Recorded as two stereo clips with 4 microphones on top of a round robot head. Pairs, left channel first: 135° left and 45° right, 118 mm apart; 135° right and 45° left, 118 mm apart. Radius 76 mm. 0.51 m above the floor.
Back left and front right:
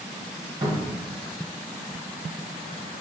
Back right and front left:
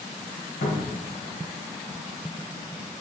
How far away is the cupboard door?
About 0.9 m.